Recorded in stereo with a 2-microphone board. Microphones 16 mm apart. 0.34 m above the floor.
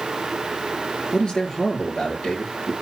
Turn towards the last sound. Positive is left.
turn(degrees=80)